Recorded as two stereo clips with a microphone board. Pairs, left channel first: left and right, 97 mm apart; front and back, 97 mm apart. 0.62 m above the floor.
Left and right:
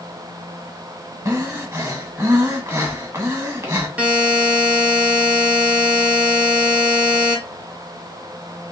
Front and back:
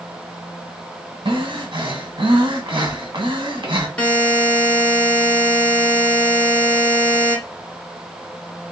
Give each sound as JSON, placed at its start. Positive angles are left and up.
{"t": 1.2, "sound": "breathing", "azimuth_deg": -155, "distance_m": 1.4}
{"t": 4.0, "sound": "a buzzer", "azimuth_deg": -50, "distance_m": 1.1}